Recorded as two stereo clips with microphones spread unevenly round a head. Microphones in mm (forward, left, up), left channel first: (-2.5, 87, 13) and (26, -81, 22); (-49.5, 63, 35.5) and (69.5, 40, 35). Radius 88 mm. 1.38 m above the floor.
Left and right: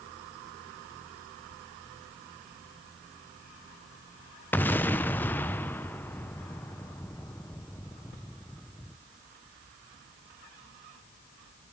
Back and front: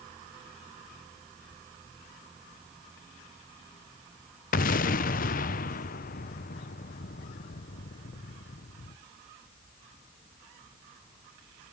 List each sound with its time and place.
4.5 s an explosion: straight behind, 0.8 m